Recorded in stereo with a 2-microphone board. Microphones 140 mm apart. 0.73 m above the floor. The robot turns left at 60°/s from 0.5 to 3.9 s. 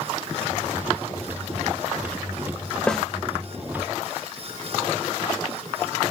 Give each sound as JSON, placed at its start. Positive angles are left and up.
{"t": 2.9, "sound": "a snare drum", "side_deg": 5, "distance_m": 1.0}